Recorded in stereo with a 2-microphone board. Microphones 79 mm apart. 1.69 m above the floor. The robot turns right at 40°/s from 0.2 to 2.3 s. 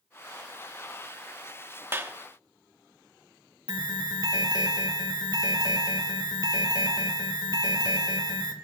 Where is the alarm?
75° right (ahead or behind), 1.5 m.